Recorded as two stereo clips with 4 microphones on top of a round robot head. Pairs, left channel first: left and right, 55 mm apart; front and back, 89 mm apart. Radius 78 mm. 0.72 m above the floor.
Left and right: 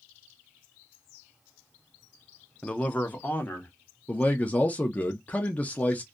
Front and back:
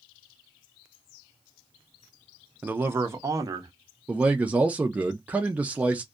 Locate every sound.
2.6 s a man speaking: 130° left, 0.5 m; by 3.7 s 140° left, 0.9 m
4.1 s a man speaking: 120° left, 0.5 m